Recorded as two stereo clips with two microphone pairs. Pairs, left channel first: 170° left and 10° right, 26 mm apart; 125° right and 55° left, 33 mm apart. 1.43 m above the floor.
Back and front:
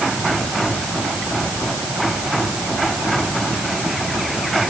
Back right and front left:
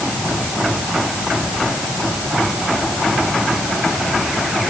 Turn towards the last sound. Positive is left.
No sound to turn to.